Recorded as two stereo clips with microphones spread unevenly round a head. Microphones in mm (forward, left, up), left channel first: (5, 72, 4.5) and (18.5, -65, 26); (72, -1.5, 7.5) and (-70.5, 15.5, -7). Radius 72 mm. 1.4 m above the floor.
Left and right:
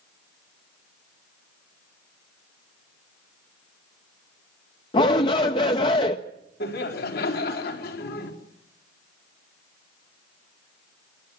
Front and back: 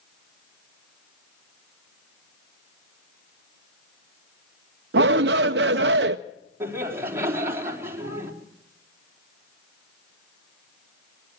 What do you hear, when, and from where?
4.9 s a shout: 155° left, 0.5 m
6.6 s laughter: 100° left, 4 m